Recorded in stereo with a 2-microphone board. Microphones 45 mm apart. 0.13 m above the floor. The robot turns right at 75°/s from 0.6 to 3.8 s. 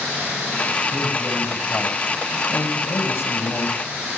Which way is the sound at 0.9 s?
60° right.